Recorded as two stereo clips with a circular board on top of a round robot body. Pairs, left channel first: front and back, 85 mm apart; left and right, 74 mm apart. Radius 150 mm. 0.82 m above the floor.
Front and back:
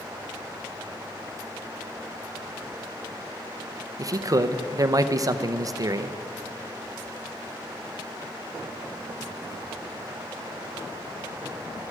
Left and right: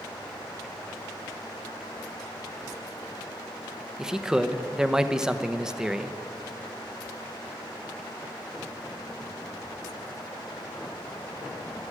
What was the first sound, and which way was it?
A man speaking, 170° right.